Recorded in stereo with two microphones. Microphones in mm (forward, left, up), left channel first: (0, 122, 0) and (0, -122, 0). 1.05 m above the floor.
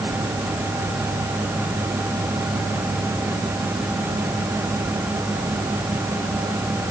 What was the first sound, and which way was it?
Only background noise.